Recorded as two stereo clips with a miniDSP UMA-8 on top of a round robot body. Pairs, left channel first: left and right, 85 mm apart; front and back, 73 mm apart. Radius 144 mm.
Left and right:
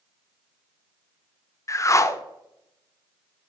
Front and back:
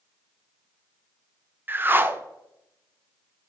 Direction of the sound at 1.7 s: 130° left.